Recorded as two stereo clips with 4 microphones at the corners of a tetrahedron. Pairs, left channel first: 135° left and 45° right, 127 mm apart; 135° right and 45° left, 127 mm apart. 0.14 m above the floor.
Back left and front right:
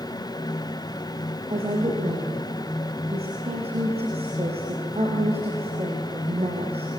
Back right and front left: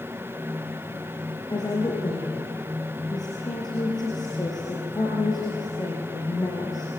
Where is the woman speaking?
80° right, 4.5 m.